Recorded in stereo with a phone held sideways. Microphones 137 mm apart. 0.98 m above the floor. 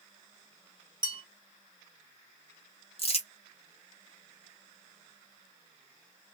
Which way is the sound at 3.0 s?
45° left (ahead or behind).